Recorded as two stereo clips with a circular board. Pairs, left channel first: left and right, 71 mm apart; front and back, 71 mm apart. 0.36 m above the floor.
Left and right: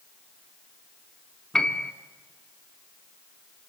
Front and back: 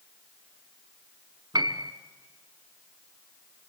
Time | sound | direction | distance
1.5 | a piano | 175° left | 1.1 m